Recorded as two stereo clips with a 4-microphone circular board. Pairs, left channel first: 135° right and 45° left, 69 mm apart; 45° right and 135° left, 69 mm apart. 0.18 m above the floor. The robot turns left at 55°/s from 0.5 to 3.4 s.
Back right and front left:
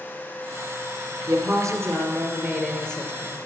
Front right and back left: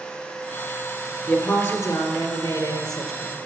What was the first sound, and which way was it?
A woman speaking, 30° left.